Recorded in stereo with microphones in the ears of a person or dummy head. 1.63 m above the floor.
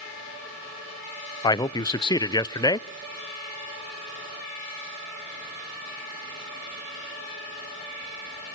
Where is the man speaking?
20° left (ahead or behind), 0.6 m.